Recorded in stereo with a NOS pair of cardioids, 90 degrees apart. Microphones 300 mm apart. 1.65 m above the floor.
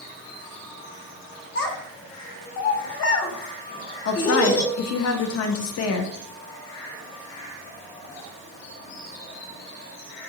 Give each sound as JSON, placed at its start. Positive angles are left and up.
{"t": 1.6, "sound": "a child speaking", "azimuth_deg": 55, "distance_m": 1.3}
{"t": 4.0, "sound": "a woman speaking", "azimuth_deg": 55, "distance_m": 0.8}